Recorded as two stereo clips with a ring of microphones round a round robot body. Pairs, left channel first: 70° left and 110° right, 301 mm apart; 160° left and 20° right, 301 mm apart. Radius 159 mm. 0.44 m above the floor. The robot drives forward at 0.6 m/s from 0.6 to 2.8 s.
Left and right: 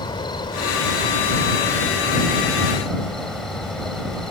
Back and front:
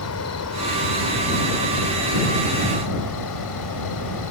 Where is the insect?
140° left; by 4.3 s 155° left.